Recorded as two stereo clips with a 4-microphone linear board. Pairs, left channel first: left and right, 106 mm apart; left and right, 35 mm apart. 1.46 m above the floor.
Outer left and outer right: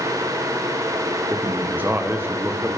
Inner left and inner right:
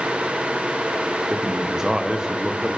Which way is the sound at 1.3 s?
20° right (ahead or behind).